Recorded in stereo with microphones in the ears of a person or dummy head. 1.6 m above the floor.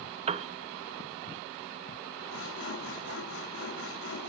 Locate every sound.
0.3 s a piano: 35° right (ahead or behind), 0.6 m
2.3 s sawing: 70° left (ahead or behind), 4 m